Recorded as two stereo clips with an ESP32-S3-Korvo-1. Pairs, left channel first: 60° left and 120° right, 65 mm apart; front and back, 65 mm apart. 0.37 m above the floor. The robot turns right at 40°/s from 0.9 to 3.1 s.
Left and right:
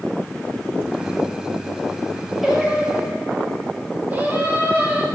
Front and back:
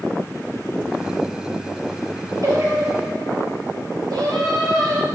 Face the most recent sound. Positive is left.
turn(degrees=180)